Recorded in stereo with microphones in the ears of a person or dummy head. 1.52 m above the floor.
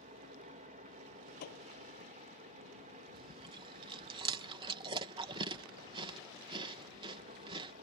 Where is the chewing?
30° right (ahead or behind).